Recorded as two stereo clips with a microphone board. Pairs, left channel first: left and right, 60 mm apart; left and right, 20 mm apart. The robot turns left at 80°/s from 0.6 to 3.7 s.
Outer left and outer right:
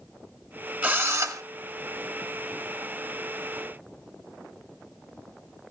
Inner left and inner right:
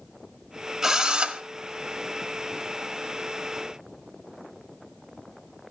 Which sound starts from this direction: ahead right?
A drill, at 0.8 s.